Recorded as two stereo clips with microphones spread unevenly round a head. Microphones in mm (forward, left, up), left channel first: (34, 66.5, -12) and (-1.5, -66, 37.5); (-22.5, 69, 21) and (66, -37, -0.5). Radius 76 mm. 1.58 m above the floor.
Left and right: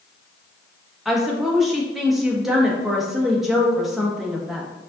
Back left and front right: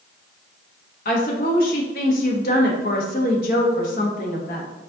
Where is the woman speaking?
165° left, 0.9 m.